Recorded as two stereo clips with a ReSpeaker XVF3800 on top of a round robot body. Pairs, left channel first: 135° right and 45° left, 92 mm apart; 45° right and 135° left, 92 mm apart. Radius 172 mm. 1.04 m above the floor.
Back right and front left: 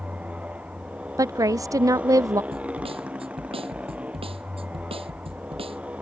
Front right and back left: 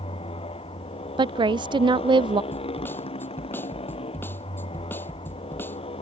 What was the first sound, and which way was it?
A motorcycle, 30° right.